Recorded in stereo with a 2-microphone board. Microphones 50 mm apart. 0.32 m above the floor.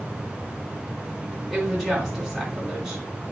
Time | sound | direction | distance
1.5 | a woman speaking | centre (ahead or behind) | 3 m